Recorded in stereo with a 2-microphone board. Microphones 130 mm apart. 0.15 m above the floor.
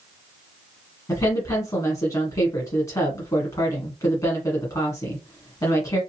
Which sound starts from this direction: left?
A woman speaking, at 1.1 s.